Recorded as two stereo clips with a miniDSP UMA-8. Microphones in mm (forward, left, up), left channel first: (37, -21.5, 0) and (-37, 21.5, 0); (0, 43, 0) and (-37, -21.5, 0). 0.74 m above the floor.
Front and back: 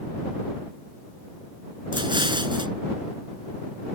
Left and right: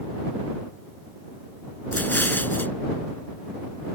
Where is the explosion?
125° left.